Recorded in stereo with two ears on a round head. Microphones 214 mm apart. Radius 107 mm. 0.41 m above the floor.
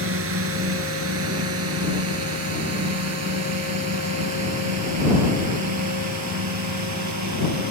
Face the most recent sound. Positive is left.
turn(degrees=-75)  # may be behind; listen again after turning